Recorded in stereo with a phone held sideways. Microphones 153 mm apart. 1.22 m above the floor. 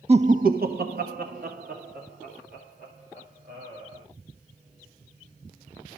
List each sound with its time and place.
0.1 s laughter: 40° right (ahead or behind), 0.8 m; by 4.0 s 60° right (ahead or behind), 4.5 m